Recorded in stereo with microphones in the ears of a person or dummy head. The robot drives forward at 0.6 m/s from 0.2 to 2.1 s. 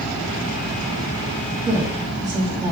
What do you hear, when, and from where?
1.6 s a woman speaking: 25° right (ahead or behind), 2 m; by 2.7 s 20° right (ahead or behind), 2.5 m